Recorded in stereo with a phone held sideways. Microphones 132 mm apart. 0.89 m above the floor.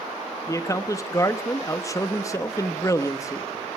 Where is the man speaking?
25° left (ahead or behind), 1.1 m.